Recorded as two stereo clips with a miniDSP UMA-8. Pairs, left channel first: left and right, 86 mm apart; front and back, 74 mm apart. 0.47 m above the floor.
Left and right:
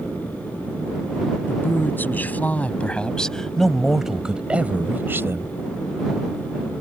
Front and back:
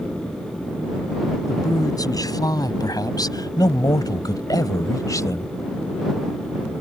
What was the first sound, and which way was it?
A man speaking, 30° left.